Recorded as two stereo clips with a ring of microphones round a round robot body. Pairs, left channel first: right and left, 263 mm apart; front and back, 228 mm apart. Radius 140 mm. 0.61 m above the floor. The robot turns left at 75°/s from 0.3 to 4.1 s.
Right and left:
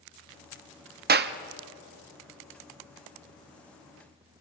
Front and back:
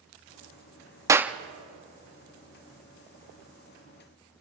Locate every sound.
1.1 s a clap: 110° left, 0.9 m; by 1.4 s 95° left, 0.9 m